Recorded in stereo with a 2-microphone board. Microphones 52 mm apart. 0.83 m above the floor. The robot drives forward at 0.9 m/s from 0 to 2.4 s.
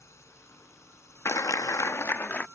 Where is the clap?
60° left (ahead or behind); by 2.5 s 40° left (ahead or behind).